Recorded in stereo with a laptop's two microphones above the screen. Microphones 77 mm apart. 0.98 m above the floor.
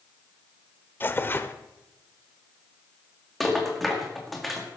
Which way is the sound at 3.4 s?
Centre (ahead or behind).